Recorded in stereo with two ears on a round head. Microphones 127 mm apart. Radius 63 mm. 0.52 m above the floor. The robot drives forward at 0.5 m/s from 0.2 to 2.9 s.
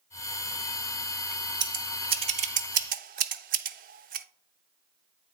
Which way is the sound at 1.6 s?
30° right (ahead or behind).